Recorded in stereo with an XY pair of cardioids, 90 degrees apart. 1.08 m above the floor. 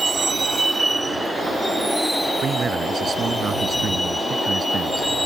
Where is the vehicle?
40° right; by 5.2 s 5° left.